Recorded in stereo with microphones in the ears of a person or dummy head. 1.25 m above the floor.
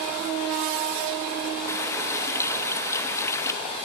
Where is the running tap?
15° left (ahead or behind), 0.7 m.